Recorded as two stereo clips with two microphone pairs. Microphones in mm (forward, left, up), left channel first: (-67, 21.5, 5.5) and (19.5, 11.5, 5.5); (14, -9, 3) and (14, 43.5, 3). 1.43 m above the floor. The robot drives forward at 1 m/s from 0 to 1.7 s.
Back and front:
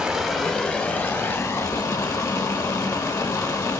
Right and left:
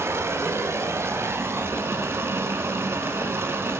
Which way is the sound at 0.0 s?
75° left.